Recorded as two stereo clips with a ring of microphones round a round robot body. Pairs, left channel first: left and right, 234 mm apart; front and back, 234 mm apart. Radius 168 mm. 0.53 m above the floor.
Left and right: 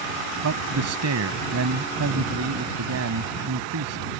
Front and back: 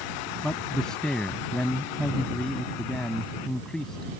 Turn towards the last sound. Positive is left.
turn(degrees=-90)